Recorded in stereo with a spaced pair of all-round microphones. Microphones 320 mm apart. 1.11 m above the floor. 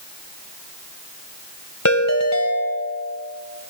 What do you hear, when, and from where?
1.9 s a ringtone: 55° left (ahead or behind), 2 m